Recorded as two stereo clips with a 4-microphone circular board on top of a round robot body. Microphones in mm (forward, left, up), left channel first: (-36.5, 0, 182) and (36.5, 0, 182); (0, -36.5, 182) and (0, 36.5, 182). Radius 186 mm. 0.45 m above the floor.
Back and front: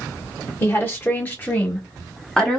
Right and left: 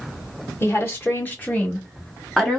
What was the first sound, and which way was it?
A woman speaking, 135° right.